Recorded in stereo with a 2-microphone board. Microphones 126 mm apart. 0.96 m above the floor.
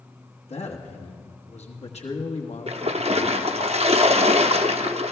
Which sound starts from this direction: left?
A man speaking, at 0.5 s.